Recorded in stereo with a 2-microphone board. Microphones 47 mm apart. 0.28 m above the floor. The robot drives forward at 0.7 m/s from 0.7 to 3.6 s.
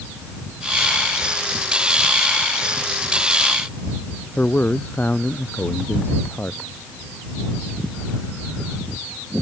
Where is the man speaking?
40° left (ahead or behind).